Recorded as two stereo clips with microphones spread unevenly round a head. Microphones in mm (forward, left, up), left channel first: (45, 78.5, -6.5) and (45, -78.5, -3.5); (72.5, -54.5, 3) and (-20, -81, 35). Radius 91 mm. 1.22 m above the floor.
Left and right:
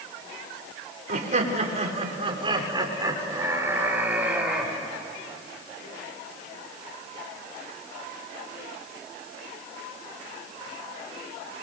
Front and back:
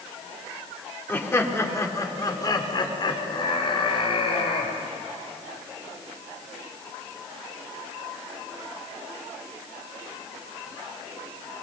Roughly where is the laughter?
Ahead right.